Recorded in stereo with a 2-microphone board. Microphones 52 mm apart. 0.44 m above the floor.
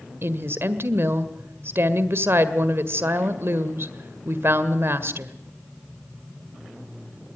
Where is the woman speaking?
55° right (ahead or behind), 1.6 m.